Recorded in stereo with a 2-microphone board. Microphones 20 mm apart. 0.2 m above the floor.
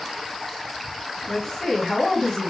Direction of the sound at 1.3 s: 25° left (ahead or behind).